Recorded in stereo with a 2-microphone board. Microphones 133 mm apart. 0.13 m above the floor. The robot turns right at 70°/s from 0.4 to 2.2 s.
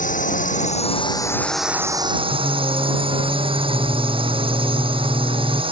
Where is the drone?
95° left; by 5.7 s 135° right.